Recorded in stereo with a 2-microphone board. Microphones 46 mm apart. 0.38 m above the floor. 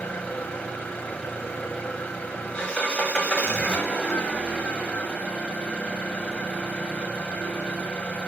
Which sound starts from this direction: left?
An engine running, at 0.0 s.